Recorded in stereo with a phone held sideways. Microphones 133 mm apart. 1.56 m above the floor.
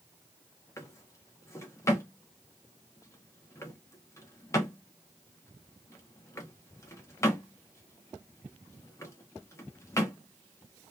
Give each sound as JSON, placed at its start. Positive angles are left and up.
{"t": 0.8, "sound": "a drawer", "side_deg": 20, "distance_m": 0.7}